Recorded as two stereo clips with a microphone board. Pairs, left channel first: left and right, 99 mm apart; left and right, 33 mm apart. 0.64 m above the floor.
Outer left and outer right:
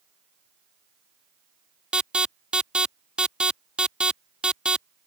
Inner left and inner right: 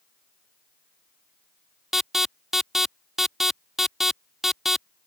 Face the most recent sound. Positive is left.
turn(degrees=-10)  # may be behind; listen again after turning